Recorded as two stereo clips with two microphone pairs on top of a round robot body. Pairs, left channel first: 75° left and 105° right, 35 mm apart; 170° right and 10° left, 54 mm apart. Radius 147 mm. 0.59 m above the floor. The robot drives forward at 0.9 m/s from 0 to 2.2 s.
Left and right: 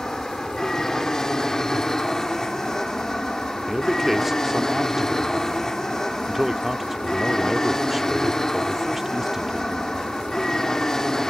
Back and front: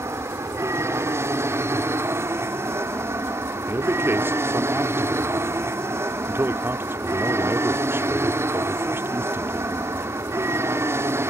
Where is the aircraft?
5° right.